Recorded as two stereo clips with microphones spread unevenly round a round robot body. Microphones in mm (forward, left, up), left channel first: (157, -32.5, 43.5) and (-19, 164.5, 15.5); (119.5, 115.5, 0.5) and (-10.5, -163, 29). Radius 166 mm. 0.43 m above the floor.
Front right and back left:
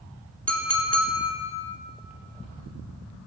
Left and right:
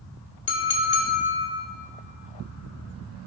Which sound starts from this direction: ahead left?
A clink, at 0.5 s.